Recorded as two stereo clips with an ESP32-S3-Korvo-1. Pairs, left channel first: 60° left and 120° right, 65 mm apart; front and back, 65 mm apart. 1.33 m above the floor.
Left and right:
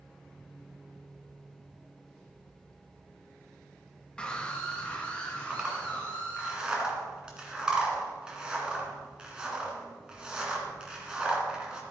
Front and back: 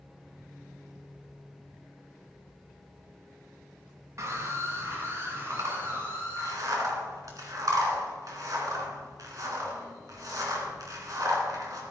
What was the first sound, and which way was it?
A scream, 135° left.